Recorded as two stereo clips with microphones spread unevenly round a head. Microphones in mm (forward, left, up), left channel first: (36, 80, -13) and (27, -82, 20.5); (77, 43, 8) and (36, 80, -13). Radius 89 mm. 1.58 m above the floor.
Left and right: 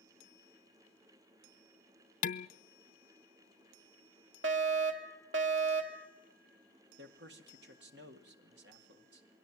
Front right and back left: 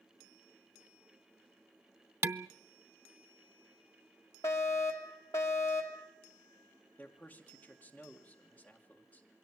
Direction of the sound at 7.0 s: 120° right.